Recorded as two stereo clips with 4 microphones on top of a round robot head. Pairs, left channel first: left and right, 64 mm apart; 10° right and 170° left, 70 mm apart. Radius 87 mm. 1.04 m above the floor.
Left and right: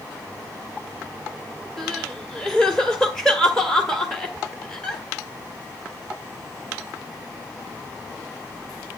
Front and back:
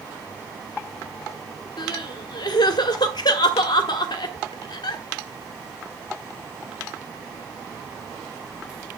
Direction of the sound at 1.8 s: 5° left.